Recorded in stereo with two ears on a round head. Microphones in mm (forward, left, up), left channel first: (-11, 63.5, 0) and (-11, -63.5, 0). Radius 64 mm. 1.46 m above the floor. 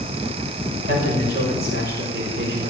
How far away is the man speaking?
About 5.5 m.